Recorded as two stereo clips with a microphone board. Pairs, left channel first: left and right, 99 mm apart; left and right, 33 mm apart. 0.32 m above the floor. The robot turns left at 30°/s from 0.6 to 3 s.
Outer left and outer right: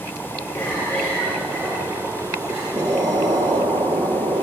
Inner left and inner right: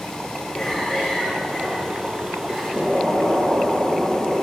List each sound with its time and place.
0.5 s a cough: 35° left, 5.5 m; by 2.6 s 25° right, 5.5 m
2.7 s an explosion: 35° right (ahead or behind), 1.4 m; by 4.4 s 45° right (ahead or behind), 1.4 m